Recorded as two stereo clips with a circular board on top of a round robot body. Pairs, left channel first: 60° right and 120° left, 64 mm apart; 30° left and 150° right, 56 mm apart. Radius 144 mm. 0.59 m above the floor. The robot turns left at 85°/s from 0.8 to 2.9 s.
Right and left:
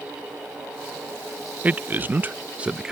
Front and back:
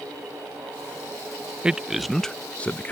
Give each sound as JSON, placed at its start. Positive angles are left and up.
{"t": 1.6, "sound": "a man speaking", "azimuth_deg": 155}